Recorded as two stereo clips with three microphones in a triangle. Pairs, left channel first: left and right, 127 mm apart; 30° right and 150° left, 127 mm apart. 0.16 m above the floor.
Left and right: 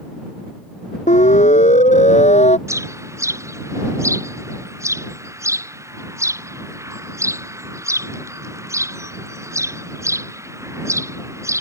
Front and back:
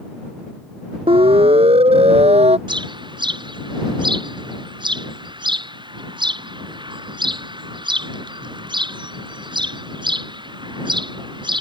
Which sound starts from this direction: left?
A siren, at 1.1 s.